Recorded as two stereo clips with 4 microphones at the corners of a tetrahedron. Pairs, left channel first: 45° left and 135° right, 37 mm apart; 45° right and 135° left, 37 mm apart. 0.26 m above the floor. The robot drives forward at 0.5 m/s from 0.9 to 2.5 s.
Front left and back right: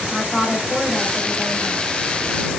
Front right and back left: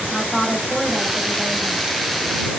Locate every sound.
0.1 s a woman speaking: 50° left, 0.9 m; by 1.9 s 140° left, 0.9 m